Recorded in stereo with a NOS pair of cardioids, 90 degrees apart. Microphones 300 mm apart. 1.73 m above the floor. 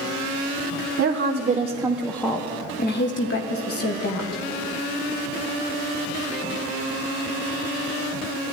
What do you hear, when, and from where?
1.0 s a woman speaking: 50° right, 1.3 m; by 4.4 s 60° left, 2.5 m